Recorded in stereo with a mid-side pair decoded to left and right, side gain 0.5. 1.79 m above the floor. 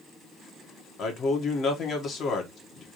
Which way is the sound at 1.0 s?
55° left.